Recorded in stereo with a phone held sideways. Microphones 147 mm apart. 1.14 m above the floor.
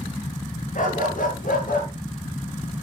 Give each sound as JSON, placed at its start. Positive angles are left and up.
{"t": 0.8, "sound": "a dog barking", "side_deg": 70, "distance_m": 9.5}